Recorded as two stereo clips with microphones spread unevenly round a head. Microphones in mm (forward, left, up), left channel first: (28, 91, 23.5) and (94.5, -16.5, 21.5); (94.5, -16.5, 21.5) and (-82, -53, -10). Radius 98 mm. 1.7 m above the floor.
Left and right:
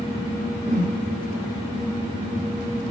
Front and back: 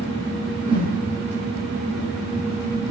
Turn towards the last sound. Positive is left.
turn(degrees=-105)